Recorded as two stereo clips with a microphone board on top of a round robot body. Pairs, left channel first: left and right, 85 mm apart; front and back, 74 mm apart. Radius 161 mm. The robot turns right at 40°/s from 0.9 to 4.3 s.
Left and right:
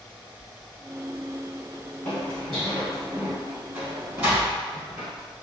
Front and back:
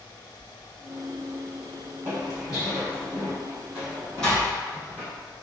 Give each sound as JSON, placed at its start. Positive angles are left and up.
{"t": 2.0, "sound": "footsteps", "azimuth_deg": 145, "distance_m": 2.0}